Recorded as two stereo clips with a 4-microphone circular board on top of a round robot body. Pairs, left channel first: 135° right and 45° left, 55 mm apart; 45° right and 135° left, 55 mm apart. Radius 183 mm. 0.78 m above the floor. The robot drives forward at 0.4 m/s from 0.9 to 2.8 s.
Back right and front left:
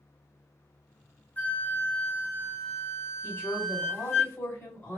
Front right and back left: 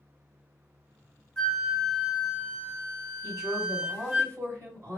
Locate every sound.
1.4 s a flute: 110° right, 1.0 m; by 4.2 s 150° right, 1.2 m
3.2 s a woman speaking: 175° left, 2 m